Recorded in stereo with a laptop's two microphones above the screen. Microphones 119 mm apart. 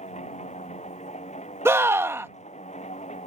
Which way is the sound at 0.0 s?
75° left (ahead or behind).